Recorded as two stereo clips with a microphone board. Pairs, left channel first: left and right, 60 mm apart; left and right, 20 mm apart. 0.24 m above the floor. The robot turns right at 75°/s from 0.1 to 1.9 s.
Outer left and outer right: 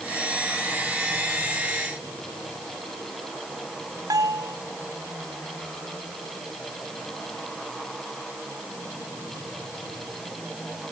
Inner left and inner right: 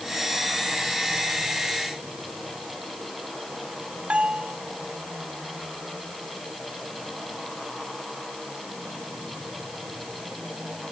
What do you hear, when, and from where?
4.1 s a bell: 80° right